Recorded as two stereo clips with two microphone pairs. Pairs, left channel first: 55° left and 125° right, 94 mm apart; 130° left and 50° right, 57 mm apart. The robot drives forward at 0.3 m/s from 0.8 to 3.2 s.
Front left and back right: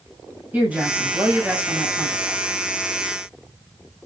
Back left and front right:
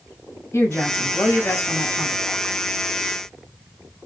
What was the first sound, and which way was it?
A woman speaking, 165° left.